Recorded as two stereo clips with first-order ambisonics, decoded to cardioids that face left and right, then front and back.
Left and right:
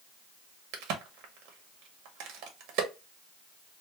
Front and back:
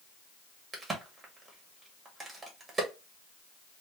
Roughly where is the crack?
Right.